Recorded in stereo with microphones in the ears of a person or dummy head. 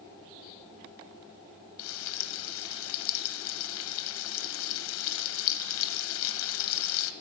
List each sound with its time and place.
1.8 s frying: 75° left (ahead or behind), 0.9 m